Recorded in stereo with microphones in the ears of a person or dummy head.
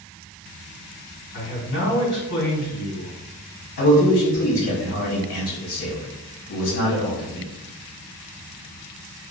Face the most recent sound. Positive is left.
turn(degrees=65)  # may be behind; listen again after turning